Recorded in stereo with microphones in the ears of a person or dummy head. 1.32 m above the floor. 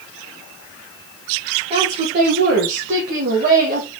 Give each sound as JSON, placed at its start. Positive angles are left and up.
{"t": 1.7, "sound": "a woman speaking", "side_deg": -35, "distance_m": 1.1}